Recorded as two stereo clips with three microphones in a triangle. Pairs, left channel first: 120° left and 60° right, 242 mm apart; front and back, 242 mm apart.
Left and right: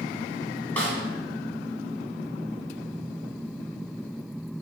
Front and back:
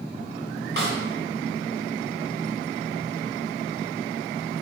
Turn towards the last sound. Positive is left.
turn(degrees=-160)